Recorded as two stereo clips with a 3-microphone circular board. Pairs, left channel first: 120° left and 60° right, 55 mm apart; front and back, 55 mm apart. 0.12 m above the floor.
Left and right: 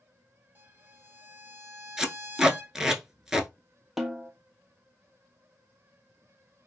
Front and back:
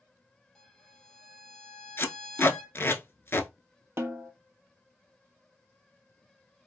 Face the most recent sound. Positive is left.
turn(degrees=-145)